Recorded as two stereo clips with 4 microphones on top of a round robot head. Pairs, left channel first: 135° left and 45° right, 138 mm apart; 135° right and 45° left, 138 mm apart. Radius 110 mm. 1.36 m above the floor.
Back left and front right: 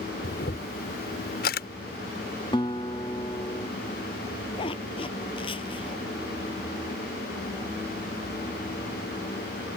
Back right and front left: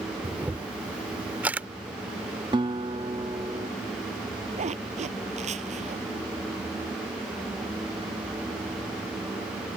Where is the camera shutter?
120° left.